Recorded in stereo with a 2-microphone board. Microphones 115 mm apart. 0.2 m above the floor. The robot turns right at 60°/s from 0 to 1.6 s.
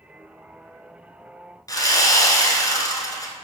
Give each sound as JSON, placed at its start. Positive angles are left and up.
{"t": 1.7, "sound": "sawing", "side_deg": 30, "distance_m": 1.1}